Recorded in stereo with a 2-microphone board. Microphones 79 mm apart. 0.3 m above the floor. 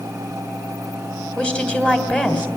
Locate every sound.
1.4 s a woman speaking: 15° left (ahead or behind), 1.8 m